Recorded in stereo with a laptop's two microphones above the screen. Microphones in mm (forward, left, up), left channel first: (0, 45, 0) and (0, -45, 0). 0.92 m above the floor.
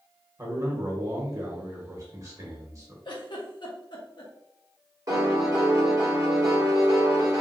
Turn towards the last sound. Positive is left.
turn(degrees=-40)  # may be behind; listen again after turning